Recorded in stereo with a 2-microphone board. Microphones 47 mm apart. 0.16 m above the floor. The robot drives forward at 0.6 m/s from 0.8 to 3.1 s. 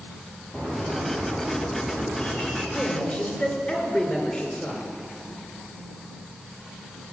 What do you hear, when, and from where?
0.5 s a bird: 30° left (ahead or behind), 2.5 m; by 2.6 s 20° left (ahead or behind), 3.5 m
2.7 s a man speaking: 30° left (ahead or behind), 2.5 m